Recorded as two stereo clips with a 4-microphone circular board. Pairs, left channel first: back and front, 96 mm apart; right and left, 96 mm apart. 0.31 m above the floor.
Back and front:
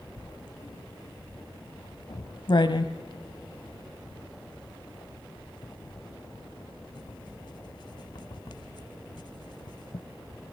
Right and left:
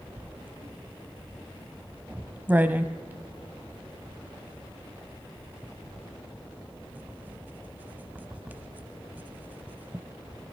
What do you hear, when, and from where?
0.2 s writing: 160° left, 0.9 m